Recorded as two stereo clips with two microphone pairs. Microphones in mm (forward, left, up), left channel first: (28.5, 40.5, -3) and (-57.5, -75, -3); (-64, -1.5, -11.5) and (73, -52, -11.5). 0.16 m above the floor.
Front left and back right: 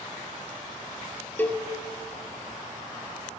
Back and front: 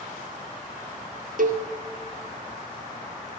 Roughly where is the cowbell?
Ahead right.